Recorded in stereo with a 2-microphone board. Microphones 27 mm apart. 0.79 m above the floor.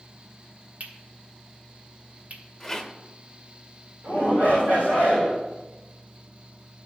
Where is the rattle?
10° left (ahead or behind), 1.2 m.